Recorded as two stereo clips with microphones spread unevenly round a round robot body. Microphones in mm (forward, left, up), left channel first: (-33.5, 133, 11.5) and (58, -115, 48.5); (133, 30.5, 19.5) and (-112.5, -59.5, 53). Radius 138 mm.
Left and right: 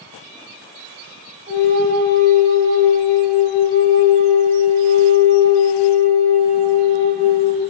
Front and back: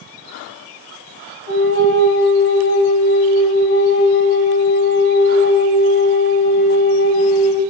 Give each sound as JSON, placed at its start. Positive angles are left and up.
{"t": 1.5, "sound": "a flute", "azimuth_deg": -15, "distance_m": 4.0}